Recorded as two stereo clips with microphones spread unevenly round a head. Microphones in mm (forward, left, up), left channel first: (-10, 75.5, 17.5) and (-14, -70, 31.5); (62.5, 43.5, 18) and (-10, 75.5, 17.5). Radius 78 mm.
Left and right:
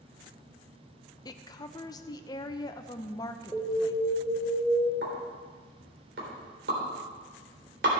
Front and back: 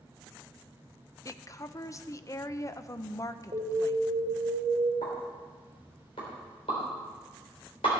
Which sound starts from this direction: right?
A pop, at 5.0 s.